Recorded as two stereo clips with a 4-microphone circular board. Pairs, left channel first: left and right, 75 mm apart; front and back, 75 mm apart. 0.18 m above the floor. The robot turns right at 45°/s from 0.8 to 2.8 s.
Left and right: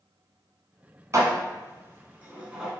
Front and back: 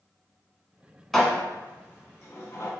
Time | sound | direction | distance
1.1 | dishes clattering | 85° right | 0.9 m